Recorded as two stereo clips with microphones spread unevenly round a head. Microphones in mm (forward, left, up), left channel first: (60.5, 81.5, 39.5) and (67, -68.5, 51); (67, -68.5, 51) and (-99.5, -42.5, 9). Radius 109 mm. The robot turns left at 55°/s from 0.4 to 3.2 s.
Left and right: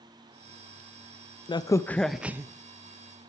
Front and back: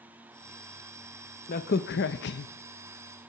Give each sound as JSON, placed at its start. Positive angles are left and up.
{"t": 1.5, "sound": "a crack", "azimuth_deg": 40, "distance_m": 0.6}